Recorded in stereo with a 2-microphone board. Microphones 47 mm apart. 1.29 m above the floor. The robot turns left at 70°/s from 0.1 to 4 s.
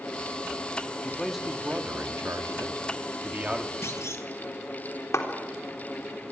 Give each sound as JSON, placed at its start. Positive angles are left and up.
{"t": 1.0, "sound": "a man speaking", "azimuth_deg": 20, "distance_m": 2.0}
{"t": 3.8, "sound": "a clunk", "side_deg": 75, "distance_m": 2.0}
{"t": 5.1, "sound": "a clap", "side_deg": 85, "distance_m": 3.5}